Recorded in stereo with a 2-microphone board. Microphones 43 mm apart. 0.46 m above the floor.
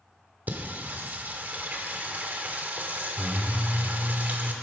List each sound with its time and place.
0.5 s singing: 40° right (ahead or behind), 1.0 m